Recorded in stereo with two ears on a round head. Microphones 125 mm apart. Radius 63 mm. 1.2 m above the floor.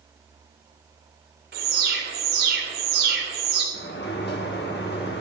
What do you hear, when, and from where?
1.5 s an alarm: 85° right, 2.5 m
3.7 s a sliding door: 85° left, 1.8 m